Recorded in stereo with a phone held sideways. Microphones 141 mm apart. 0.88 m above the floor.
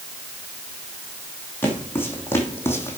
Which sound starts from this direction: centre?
Footsteps, at 1.6 s.